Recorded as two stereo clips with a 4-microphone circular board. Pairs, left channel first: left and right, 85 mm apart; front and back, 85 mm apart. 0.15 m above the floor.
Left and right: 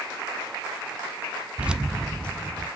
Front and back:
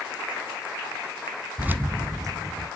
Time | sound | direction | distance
1.6 | keys jangling | 135° right | 0.7 m